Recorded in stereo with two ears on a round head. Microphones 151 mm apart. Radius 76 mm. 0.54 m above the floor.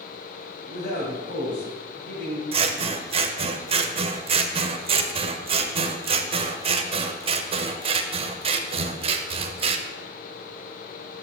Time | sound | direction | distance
0.7 | a man speaking | 60° left (ahead or behind) | 2.5 m
2.5 | scissors | 35° right (ahead or behind) | 0.6 m